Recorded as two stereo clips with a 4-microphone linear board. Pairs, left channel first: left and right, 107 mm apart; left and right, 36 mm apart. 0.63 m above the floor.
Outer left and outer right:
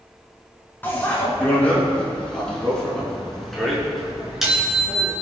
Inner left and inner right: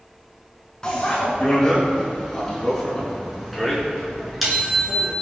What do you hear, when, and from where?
0.8 s a bicycle bell: 20° left (ahead or behind), 5 m; by 5.1 s 5° right (ahead or behind), 6.5 m